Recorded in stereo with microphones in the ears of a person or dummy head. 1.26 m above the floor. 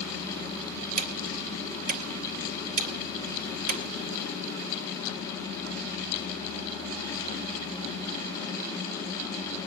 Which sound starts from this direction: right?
Ticking, at 1.0 s.